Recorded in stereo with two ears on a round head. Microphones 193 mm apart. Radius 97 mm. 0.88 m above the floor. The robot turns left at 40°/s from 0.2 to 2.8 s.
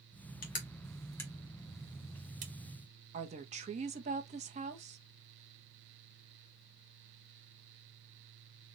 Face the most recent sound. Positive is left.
turn(degrees=-35)  # may be behind; listen again after turning